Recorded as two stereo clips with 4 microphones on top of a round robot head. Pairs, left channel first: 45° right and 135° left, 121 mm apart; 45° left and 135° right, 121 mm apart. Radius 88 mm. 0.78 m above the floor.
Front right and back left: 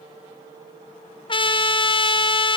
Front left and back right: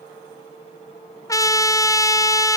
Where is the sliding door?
No sliding door in this recording.